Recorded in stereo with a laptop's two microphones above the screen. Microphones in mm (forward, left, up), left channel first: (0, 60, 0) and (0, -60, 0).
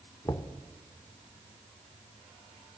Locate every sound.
0.2 s knocking: 30° left (ahead or behind), 0.8 m